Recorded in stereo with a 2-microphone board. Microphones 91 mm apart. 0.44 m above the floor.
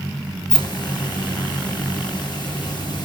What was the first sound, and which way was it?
A hiss, 55° left (ahead or behind).